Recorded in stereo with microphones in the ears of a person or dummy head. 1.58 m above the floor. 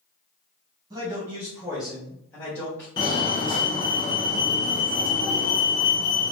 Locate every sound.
0.9 s a man speaking: 25° right (ahead or behind), 1.3 m; by 2.9 s 10° left (ahead or behind), 1.8 m
3.0 s a fire alarm: 25° left (ahead or behind), 0.8 m